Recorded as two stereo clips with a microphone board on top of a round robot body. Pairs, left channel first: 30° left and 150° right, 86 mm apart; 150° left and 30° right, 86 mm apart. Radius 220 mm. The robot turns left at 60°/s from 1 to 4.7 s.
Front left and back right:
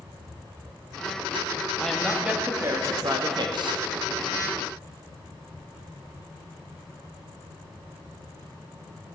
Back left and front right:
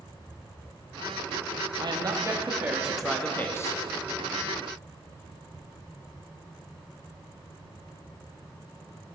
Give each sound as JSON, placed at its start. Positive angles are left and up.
{"t": 1.8, "sound": "a woman speaking", "azimuth_deg": -50, "distance_m": 1.6}